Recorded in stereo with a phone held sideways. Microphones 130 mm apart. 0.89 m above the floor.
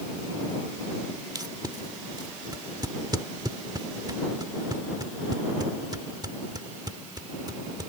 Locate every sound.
1.4 s tape being pulled: 30° right (ahead or behind)